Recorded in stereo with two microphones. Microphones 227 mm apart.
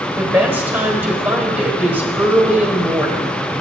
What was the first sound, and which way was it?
A woman speaking, 10° right (ahead or behind).